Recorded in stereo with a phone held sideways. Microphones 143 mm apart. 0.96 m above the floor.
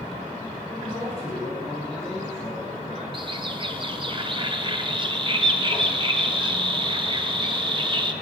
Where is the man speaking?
40° left (ahead or behind), 9.5 m.